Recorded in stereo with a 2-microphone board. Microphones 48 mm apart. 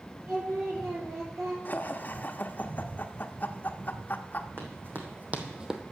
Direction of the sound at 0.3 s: 70° right (ahead or behind).